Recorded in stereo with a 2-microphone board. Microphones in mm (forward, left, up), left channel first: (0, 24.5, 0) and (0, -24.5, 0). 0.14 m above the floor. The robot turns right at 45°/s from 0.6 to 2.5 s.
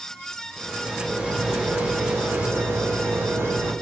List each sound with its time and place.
0.6 s a rattle: 175° left, 1.2 m; by 3.7 s 100° right, 1.2 m